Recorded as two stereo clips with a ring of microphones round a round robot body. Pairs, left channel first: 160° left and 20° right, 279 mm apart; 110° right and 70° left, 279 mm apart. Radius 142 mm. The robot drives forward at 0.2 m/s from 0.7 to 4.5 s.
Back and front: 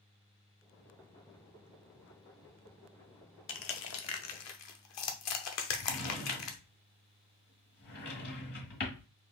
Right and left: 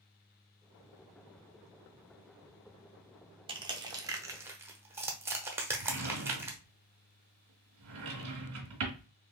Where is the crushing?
135° left, 0.6 m; by 6.6 s 150° left, 0.8 m.